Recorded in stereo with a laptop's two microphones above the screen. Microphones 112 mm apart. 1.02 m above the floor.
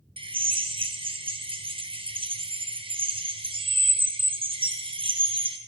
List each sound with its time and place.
0.2 s a drill: 50° right (ahead or behind), 0.8 m